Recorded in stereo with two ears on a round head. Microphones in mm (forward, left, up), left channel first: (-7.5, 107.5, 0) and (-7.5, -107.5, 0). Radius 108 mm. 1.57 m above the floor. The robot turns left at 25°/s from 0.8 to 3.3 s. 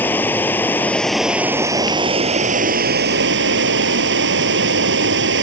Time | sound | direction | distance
0.0 | running water | 10° left | ?